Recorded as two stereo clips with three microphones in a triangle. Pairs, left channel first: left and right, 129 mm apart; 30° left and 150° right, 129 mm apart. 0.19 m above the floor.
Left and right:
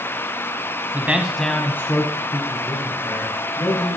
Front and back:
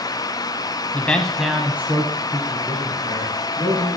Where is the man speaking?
30° right, 1.1 m; by 4.0 s 150° left, 3.5 m.